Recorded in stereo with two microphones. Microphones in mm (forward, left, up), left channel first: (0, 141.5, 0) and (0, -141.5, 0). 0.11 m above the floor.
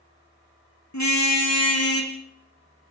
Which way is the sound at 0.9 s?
75° left (ahead or behind).